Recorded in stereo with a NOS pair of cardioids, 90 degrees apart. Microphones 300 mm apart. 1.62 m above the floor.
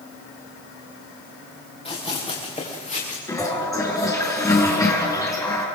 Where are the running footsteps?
20° left, 8.5 m; by 3.2 s 25° left, 8.5 m.